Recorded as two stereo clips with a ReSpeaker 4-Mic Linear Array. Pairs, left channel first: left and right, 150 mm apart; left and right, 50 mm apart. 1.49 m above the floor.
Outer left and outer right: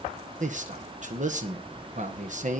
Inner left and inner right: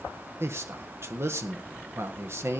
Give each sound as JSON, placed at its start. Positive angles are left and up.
{"t": 0.4, "sound": "a man speaking", "side_deg": -55, "distance_m": 1.6}